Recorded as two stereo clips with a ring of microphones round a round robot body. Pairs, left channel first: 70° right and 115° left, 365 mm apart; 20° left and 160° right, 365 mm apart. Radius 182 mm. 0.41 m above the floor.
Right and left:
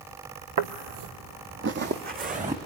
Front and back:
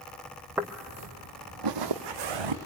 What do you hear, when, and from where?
0.6 s footsteps: 115° left, 0.8 m; by 2.5 s 175° right, 2.0 m